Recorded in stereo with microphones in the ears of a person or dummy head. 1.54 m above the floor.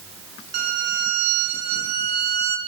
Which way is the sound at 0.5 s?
50° right (ahead or behind).